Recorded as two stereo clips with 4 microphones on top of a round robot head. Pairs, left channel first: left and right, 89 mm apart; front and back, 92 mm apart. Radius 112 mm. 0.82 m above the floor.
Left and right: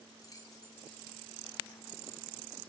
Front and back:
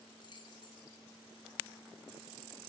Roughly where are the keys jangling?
Ahead left.